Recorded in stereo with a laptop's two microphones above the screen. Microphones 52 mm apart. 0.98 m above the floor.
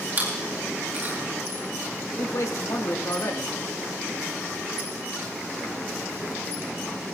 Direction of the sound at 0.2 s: 40° right (ahead or behind).